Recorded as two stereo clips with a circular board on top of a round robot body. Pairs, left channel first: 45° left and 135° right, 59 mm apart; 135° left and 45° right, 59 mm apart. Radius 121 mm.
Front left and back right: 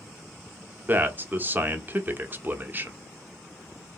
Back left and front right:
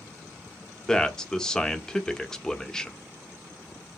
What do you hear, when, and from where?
0.9 s a man speaking: 155° right, 1.1 m